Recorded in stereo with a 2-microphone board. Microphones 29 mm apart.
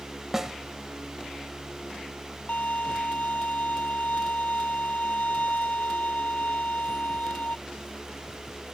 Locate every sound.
0.3 s a snare drum: 15° right (ahead or behind)
2.5 s a violin: 55° left (ahead or behind)